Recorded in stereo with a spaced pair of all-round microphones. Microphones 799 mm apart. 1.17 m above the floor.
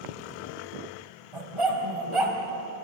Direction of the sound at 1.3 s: 40° right (ahead or behind).